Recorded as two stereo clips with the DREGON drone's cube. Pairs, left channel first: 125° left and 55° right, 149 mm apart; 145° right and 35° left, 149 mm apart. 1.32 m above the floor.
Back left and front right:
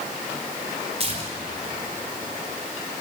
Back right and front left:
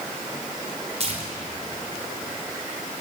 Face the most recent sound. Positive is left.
turn(degrees=-10)